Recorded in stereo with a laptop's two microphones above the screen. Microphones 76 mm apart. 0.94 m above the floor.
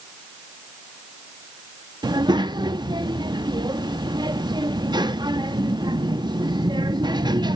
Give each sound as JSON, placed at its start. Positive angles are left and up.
{"t": 2.0, "sound": "a child speaking", "side_deg": -75, "distance_m": 0.7}